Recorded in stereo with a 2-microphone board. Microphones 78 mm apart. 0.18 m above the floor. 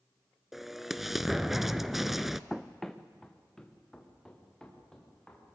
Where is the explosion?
Centre (ahead or behind), 0.5 m.